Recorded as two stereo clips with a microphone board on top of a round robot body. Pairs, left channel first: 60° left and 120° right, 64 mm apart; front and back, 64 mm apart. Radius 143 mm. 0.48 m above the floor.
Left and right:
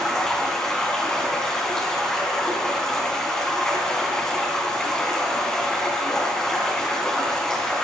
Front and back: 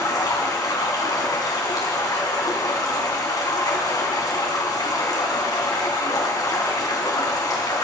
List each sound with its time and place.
0.0 s running water: 20° right, 3 m